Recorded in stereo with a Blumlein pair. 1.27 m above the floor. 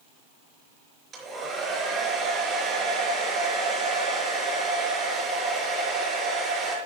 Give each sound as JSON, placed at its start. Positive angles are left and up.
{"t": 1.1, "sound": "a hair dryer", "azimuth_deg": -20, "distance_m": 4.5}